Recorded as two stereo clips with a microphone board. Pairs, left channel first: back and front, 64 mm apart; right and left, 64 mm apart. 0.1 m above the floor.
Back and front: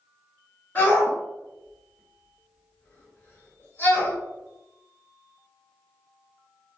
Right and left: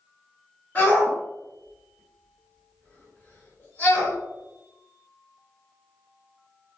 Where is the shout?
135° right, 1.7 m.